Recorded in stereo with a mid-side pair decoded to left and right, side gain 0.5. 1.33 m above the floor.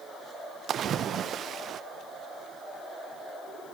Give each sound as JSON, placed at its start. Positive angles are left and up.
{"t": 0.7, "sound": "a splash", "azimuth_deg": -55, "distance_m": 0.6}